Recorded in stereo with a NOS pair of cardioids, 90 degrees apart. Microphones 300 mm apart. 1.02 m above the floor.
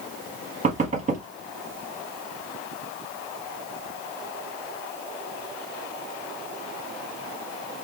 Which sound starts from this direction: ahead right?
Knocking, at 0.6 s.